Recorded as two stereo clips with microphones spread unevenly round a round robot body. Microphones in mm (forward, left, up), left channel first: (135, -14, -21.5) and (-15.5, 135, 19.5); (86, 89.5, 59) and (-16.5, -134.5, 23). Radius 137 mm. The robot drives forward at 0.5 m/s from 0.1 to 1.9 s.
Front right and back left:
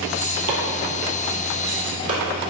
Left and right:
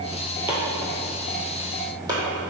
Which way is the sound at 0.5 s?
160° left.